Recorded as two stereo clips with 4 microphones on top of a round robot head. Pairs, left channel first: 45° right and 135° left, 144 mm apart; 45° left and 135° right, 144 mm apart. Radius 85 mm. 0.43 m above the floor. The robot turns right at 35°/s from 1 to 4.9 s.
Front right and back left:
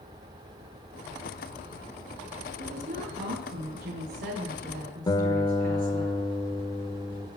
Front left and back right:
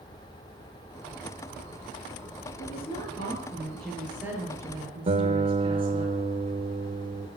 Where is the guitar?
105° right, 1.3 m.